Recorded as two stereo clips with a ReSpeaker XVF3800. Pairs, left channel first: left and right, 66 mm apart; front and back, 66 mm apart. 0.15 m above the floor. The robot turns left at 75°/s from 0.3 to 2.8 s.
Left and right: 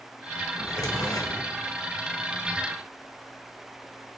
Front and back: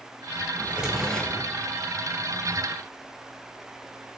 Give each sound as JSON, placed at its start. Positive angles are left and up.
{"t": 0.6, "sound": "a drawer", "azimuth_deg": 125, "distance_m": 0.5}